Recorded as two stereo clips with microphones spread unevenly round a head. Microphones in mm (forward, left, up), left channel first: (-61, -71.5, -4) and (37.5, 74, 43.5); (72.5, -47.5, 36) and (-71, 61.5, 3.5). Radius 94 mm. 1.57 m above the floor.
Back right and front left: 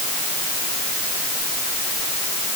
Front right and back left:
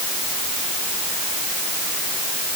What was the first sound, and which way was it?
Only background noise.